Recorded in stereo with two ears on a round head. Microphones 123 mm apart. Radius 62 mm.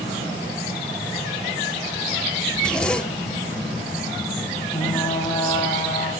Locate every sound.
2.5 s a zipper: 5° left (ahead or behind), 1.8 m
4.7 s frying: 25° left (ahead or behind), 7 m